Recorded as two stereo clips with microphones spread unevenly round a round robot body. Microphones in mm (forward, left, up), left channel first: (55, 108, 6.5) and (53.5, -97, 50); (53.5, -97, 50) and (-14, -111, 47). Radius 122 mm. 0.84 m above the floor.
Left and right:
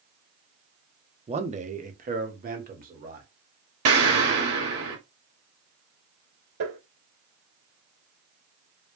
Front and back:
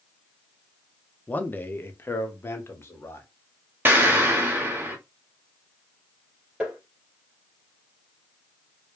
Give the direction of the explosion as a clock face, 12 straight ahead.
4 o'clock.